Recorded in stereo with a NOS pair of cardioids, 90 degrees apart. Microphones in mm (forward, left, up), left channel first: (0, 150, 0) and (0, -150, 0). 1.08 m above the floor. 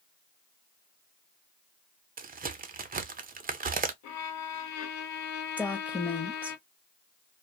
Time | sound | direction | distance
2.2 | a crack | 30° right | 0.6 m
4.0 | a violin | 65° left | 0.6 m
5.6 | a woman speaking | 5° left | 0.7 m